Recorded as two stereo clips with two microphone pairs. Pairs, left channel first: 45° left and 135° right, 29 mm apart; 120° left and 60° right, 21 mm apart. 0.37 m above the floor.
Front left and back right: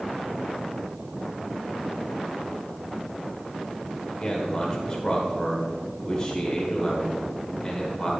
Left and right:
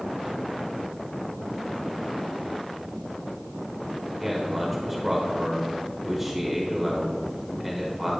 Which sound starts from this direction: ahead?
A man speaking, at 4.1 s.